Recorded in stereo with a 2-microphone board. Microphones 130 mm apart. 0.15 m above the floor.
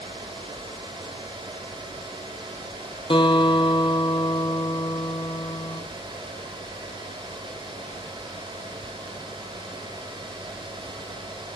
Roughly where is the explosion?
I don't hear an explosion.